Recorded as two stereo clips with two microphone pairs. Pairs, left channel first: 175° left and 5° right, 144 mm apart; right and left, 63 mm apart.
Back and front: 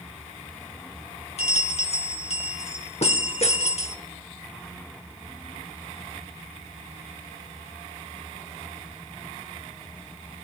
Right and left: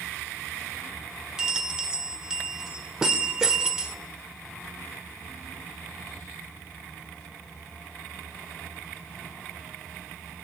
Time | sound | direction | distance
1.4 | a bell | 165° left | 0.8 m